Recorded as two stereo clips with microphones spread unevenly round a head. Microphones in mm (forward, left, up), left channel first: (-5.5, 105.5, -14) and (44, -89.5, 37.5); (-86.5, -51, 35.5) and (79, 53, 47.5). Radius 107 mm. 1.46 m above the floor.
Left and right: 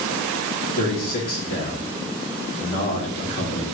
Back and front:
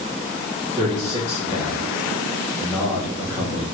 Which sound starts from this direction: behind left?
A man speaking, at 0.8 s.